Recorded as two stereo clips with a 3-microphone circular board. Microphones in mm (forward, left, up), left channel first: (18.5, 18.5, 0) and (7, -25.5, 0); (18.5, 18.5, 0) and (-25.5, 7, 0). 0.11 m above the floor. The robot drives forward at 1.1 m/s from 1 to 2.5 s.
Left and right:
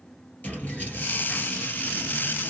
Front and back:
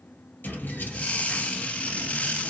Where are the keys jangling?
35° left, 1.7 m; by 2.5 s 125° left, 1.4 m.